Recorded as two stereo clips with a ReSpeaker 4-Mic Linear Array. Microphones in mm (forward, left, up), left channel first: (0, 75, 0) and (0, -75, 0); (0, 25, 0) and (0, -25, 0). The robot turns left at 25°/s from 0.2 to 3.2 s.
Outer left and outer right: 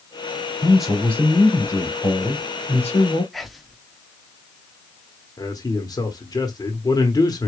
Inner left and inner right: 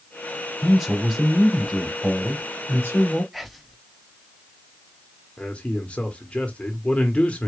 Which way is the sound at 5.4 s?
25° left (ahead or behind).